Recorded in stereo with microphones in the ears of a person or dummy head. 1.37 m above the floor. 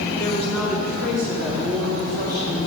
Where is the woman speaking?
15° left (ahead or behind), 1.6 m; by 2.6 s 15° right (ahead or behind), 4 m.